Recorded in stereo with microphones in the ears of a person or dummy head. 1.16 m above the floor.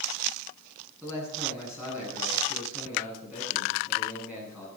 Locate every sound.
1.0 s a man speaking: 10° right (ahead or behind), 9.5 m